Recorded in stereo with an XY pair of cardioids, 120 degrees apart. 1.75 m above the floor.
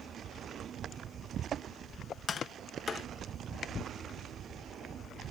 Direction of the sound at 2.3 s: 40° left.